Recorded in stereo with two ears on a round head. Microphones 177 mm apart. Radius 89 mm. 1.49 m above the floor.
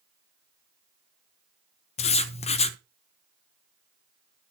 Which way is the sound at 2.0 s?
30° left (ahead or behind).